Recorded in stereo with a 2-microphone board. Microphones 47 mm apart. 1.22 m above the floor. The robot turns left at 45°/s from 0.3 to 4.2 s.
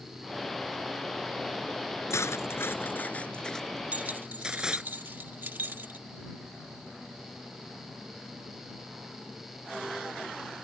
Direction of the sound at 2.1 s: 80° left.